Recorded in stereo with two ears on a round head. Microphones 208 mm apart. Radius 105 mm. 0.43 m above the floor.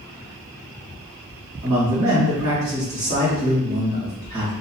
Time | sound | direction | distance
1.6 | a man speaking | 45° right (ahead or behind) | 1.9 m